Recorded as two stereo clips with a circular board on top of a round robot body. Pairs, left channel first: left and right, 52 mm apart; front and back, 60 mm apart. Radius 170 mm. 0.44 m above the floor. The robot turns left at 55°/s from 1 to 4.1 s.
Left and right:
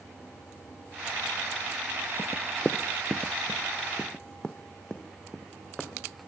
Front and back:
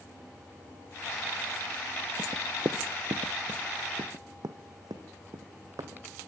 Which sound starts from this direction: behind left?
Running footsteps, at 2.2 s.